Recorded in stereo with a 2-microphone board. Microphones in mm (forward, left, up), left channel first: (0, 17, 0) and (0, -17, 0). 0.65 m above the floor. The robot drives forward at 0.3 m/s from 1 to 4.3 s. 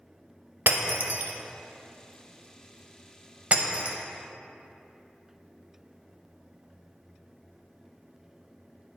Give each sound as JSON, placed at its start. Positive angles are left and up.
{"t": 0.7, "sound": "breaking glass", "side_deg": -70, "distance_m": 0.8}